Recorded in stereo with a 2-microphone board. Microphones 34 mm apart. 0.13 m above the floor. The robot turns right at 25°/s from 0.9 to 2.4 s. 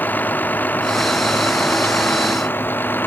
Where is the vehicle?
65° left; by 3.1 s 105° left.